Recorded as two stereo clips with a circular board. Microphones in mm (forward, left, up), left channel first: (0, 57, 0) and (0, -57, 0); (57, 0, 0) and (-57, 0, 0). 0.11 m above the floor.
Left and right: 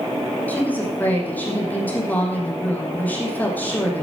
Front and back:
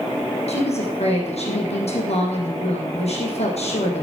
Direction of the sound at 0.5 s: 15° left.